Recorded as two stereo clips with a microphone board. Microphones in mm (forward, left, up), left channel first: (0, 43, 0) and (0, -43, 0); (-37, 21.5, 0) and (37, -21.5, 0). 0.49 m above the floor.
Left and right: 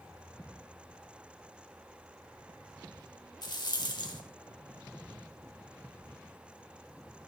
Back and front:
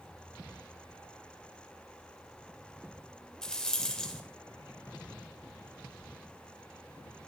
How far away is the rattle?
About 1.7 m.